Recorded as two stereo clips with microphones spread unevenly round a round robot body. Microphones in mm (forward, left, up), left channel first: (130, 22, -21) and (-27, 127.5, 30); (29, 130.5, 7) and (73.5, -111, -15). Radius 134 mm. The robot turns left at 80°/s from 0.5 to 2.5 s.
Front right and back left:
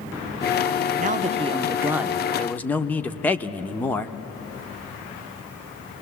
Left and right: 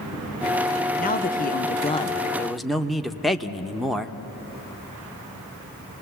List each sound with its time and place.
1.0 s a man speaking: 120° left, 0.7 m; by 4.2 s straight ahead, 0.7 m